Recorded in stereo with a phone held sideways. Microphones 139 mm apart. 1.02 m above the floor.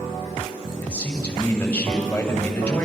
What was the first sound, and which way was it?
A man speaking, 10° left (ahead or behind).